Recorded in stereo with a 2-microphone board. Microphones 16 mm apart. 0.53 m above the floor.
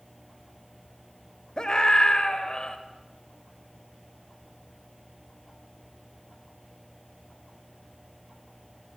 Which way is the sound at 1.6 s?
60° left (ahead or behind).